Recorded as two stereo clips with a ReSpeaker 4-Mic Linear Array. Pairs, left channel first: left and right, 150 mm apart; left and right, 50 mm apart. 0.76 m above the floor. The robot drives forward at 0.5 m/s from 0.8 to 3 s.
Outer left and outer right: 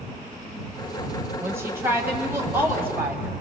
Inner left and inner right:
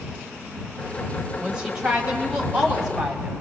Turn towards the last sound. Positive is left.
turn(degrees=-15)  # may be behind; listen again after turning